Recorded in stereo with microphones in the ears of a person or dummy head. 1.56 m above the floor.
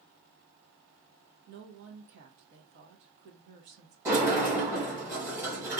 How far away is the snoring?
No snoring in this recording.